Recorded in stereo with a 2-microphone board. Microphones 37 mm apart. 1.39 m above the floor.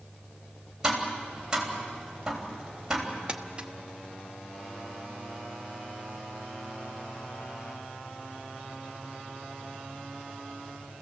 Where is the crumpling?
30° right (ahead or behind), 1.0 m.